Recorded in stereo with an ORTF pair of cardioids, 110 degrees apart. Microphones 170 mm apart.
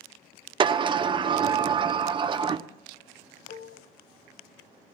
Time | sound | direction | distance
0.6 | a sliding door | 30° right | 1.0 m
3.5 | dishes clattering | 60° left | 1.7 m